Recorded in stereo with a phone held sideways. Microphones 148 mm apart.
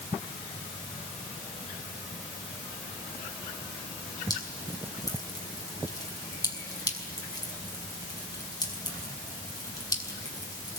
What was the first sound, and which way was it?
Dripping, 25° left (ahead or behind).